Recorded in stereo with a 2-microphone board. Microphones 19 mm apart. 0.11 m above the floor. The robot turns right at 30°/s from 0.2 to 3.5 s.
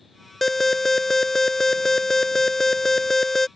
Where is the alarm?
15° left (ahead or behind).